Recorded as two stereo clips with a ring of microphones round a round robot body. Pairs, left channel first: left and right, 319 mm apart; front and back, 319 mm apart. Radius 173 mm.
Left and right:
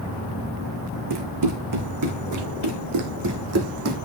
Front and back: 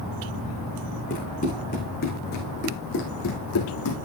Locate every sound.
1.1 s running footsteps: 70° right, 4 m; by 4.0 s 45° right, 2.5 m